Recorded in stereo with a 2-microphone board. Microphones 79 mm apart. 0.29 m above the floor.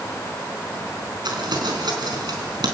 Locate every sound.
1.2 s crumpling: 65° right (ahead or behind), 4 m